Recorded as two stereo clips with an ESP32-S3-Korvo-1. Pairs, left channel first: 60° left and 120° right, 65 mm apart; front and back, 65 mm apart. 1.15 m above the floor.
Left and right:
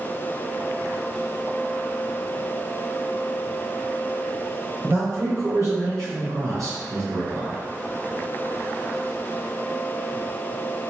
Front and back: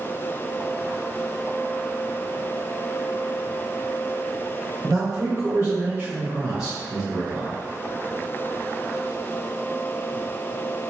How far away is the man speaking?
About 1.1 m.